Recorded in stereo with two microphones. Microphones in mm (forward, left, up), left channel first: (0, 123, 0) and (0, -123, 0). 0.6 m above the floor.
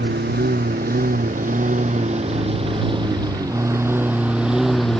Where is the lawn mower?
45° right (ahead or behind); by 5.0 s centre (ahead or behind).